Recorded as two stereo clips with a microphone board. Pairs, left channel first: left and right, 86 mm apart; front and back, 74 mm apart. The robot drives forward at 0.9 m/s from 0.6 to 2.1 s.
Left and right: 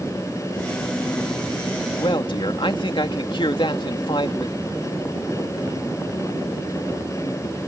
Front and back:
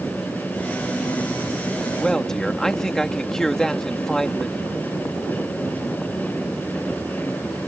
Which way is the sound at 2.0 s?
80° left.